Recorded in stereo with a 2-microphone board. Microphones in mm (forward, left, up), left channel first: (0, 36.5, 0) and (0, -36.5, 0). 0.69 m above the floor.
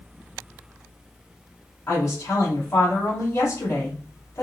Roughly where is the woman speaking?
Left.